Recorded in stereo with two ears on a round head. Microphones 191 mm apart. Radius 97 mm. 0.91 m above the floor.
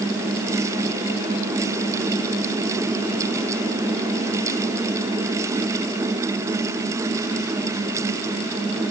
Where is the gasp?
I don't hear a gasp.